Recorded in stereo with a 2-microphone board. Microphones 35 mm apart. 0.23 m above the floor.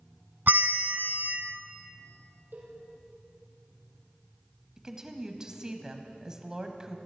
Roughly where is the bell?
Right.